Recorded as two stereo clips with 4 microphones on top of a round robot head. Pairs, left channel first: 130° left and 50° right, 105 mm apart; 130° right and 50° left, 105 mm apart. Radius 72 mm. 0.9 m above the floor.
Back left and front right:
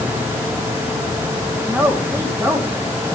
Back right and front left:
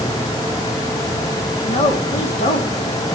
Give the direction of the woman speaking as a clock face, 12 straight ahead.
4 o'clock.